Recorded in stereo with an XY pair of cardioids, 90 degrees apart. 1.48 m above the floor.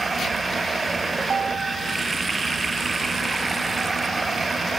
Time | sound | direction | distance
0.0 | running water | 30° right | ?
1.2 | a ringtone | 45° right | ?